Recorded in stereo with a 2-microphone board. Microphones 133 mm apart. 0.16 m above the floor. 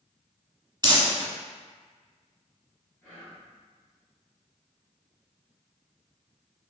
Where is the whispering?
10° left (ahead or behind), 1.7 m.